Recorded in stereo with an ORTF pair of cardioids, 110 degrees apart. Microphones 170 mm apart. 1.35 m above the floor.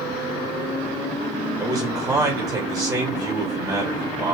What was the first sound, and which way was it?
A man speaking, 20° right.